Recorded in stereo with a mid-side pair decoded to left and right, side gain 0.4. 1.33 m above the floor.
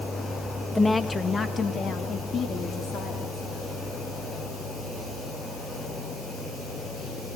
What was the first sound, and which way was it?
A woman speaking, 15° left.